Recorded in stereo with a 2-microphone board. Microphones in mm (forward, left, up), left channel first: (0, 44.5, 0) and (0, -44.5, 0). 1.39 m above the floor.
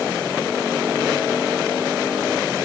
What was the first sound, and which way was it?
Only background noise.